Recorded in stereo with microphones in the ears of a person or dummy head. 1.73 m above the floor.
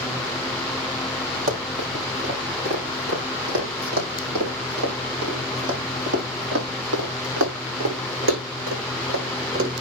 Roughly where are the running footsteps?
Right.